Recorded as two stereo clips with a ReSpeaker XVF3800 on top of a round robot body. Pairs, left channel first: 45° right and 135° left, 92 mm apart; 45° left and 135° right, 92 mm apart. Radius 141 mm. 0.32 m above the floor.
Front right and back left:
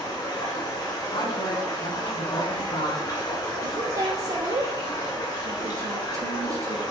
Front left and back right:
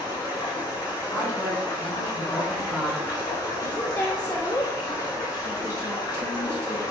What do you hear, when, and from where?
0.0 s running water: 5° right, 3.5 m
1.1 s a woman speaking: 30° right, 4 m
3.6 s a woman speaking: 110° left, 1.2 m